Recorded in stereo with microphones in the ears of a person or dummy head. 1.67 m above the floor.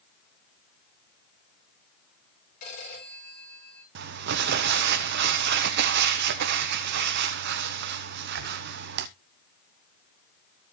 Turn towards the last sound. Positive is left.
turn(degrees=-65)  # may be behind; listen again after turning